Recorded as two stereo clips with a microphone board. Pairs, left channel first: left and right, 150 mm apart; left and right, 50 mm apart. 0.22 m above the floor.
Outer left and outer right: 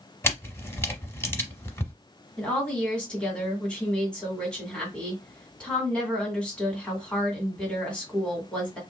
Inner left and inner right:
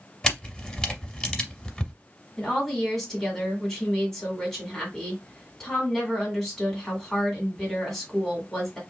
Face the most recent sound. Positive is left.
turn(degrees=5)  # may be behind; listen again after turning